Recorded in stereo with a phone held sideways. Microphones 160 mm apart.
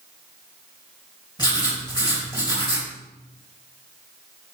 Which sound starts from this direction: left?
Writing, at 1.4 s.